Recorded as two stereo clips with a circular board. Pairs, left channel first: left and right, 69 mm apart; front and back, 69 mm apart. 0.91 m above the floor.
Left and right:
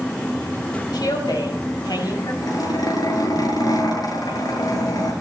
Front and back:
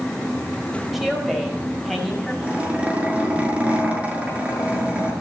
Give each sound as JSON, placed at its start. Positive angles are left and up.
{"t": 0.9, "sound": "a woman speaking", "azimuth_deg": 90, "distance_m": 5.0}
{"t": 2.4, "sound": "a zipper", "azimuth_deg": 110, "distance_m": 6.0}